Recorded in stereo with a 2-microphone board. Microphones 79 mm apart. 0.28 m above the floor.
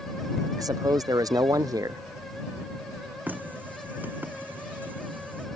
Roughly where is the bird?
I don't hear a bird.